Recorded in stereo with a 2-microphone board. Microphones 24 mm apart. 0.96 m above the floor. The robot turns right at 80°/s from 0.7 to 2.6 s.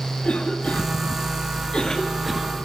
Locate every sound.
0.2 s a cough: 50° left (ahead or behind), 2.0 m; by 2.5 s 20° right (ahead or behind), 2.0 m